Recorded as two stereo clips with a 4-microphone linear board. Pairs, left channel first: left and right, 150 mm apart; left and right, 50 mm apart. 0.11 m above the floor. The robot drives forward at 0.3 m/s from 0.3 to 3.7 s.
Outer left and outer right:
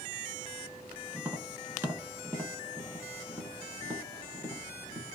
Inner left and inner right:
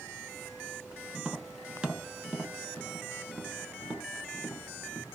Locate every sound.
1.1 s tapping: 15° right (ahead or behind), 0.8 m; by 5.0 s 10° right (ahead or behind), 1.0 m